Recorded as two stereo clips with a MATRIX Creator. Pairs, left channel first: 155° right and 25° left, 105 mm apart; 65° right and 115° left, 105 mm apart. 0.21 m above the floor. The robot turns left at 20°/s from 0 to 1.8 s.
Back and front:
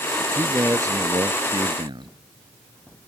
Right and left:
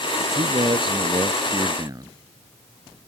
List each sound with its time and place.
0.2 s a man speaking: 95° left; by 2.1 s 60° left